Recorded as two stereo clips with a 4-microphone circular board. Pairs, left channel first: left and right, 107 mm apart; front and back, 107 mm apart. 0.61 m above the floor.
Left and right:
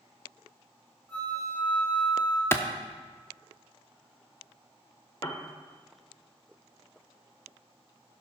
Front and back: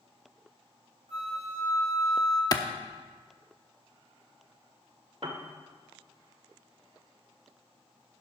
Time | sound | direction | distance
1.1 | a flute | 165° left | 3 m
2.5 | a clap | 35° left | 0.8 m
5.2 | a piano | 150° left | 1.1 m